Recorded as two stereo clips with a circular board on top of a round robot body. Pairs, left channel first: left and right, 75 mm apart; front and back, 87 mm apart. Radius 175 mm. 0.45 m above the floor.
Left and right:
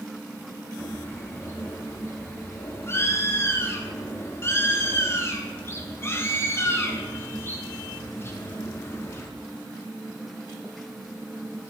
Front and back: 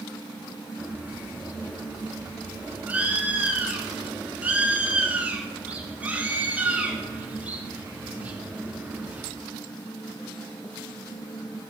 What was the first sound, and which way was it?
A bird, 120° left.